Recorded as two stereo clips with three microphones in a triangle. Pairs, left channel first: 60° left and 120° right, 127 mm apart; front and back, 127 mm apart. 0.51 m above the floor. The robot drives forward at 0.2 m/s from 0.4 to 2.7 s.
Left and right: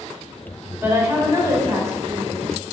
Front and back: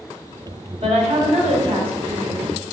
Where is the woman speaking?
175° left, 2.0 m.